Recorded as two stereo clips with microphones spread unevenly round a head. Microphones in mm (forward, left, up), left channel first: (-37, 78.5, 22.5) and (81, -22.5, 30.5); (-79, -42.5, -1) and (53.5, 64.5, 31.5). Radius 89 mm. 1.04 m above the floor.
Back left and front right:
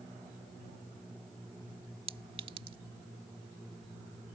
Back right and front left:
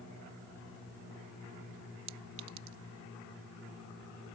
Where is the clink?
20° left.